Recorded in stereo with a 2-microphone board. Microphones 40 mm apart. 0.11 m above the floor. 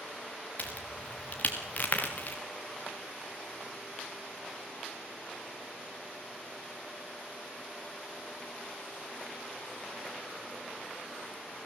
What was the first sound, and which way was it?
A crack, 35° left (ahead or behind).